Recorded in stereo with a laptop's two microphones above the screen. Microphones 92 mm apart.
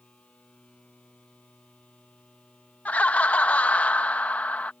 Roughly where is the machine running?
Centre.